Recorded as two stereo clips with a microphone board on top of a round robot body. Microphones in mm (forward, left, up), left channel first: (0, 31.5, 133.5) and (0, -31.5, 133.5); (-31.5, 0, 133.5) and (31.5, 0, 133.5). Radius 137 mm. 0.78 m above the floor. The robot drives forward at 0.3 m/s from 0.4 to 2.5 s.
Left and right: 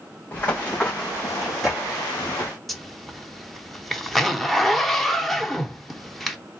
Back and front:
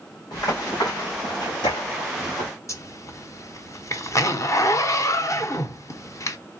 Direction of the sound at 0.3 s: 150° left.